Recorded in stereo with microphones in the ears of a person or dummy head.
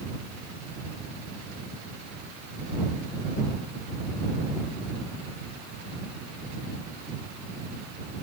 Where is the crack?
No crack in this recording.